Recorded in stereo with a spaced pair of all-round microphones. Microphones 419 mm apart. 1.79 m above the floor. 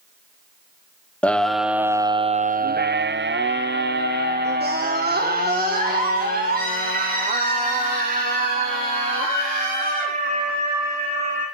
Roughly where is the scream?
Centre.